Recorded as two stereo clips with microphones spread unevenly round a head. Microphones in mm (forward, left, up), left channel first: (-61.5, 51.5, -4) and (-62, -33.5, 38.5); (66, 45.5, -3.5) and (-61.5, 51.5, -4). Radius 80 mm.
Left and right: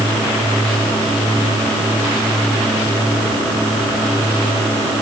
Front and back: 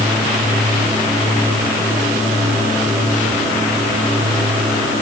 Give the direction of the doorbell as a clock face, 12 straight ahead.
No doorbell in this recording.